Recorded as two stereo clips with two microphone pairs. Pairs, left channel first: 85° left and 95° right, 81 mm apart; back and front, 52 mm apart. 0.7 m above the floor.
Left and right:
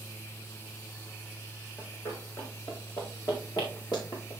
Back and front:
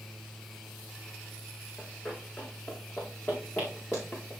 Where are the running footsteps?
125° left, 3 m; by 4.3 s 120° left, 5 m.